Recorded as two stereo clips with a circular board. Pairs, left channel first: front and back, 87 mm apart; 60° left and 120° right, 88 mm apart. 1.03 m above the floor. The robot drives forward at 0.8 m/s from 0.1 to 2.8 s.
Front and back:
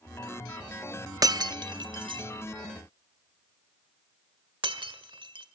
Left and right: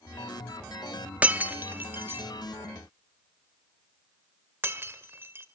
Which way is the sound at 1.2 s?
175° left.